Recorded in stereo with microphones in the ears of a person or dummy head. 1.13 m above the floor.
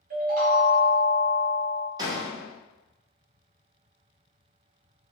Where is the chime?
40° right (ahead or behind), 0.5 m.